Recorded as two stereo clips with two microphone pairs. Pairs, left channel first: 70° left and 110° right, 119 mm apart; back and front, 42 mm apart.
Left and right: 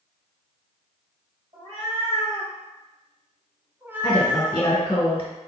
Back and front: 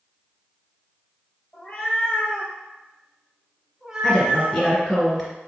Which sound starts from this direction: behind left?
A woman speaking, at 4.0 s.